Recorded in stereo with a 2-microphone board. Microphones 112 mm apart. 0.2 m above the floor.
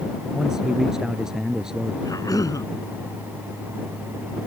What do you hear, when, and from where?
0.3 s a man speaking: 5° right (ahead or behind)
2.0 s a cough: 30° left (ahead or behind)